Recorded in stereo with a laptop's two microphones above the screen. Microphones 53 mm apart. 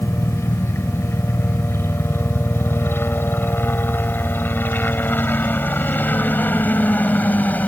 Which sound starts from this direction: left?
A helicopter, at 0.0 s.